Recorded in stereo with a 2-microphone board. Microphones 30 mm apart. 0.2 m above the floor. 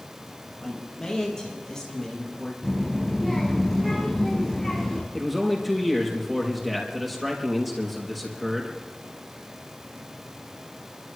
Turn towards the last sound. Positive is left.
turn(degrees=-5)  # may be behind; listen again after turning